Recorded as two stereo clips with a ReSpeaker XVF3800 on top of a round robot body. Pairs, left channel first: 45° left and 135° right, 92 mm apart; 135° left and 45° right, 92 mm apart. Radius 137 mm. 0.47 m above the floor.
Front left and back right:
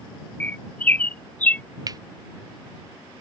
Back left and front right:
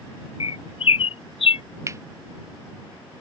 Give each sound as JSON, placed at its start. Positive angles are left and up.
{"t": 0.4, "sound": "a bird", "azimuth_deg": 120}
{"t": 1.9, "sound": "cutlery clinking", "azimuth_deg": -95}